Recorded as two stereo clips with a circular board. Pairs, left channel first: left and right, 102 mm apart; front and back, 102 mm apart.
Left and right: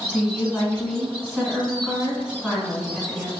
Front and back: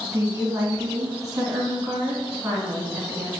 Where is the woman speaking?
Straight behind, 1.5 m.